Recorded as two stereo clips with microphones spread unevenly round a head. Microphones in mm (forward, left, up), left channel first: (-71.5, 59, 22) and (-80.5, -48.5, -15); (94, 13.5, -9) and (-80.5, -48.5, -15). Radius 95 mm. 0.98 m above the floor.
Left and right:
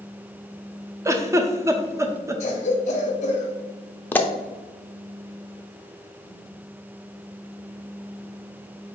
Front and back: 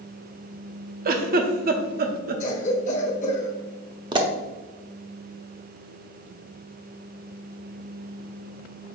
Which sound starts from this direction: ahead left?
A cough, at 2.4 s.